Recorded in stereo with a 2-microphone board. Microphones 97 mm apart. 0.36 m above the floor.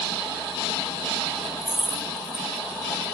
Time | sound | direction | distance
1.6 | keys jangling | 10° right (ahead or behind) | 0.7 m